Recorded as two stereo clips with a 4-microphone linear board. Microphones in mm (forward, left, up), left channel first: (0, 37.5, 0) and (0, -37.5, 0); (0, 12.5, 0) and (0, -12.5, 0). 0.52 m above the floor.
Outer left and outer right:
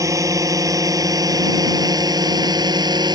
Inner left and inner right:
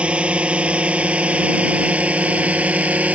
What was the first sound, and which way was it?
A drone, 45° right (ahead or behind).